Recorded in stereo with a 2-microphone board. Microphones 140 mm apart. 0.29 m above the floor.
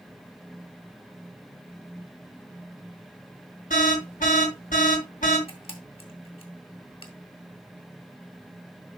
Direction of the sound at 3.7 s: 70° left (ahead or behind).